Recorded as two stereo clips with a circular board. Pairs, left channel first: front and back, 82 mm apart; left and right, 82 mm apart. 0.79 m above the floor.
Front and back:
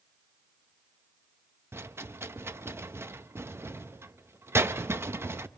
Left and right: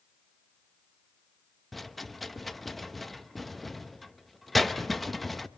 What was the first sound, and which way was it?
A rattle, straight behind.